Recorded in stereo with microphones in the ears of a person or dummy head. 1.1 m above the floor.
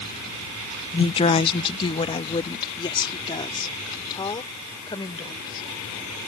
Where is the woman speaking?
20° left (ahead or behind); by 5.7 s 25° left (ahead or behind).